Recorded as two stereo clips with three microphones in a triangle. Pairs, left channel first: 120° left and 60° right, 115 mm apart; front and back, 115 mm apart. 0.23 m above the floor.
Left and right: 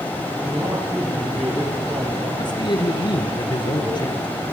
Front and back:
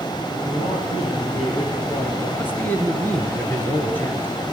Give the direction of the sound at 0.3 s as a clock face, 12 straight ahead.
12 o'clock.